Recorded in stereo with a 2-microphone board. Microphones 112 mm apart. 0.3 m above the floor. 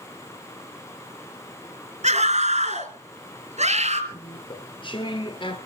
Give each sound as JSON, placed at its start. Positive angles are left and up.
{"t": 2.0, "sound": "a scream", "side_deg": -70, "distance_m": 3.5}
{"t": 4.1, "sound": "chewing", "side_deg": 45, "distance_m": 2.0}